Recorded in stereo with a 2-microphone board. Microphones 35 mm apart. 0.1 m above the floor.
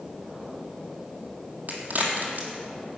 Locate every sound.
1.7 s a crack: 65° right (ahead or behind), 1.9 m